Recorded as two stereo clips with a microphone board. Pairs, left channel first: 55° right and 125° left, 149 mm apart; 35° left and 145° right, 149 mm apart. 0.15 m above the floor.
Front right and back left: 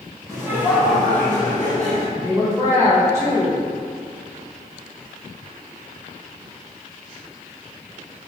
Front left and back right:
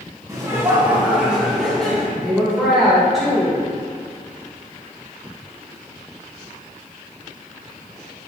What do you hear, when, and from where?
0.3 s laughter: 170° left, 1.5 m; by 2.0 s 40° right, 1.7 m
2.1 s a woman speaking: 135° left, 1.5 m